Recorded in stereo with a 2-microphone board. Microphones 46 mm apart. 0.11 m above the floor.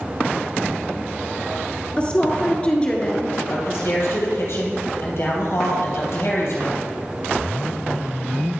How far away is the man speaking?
About 3 m.